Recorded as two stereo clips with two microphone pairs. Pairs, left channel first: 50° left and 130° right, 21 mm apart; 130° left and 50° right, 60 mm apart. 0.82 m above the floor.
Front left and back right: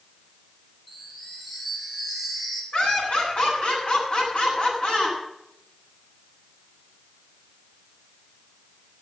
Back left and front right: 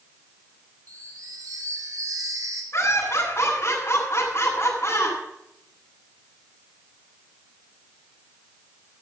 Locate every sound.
0.9 s a chime: 35° right, 3 m
2.7 s laughter: 85° left, 7.5 m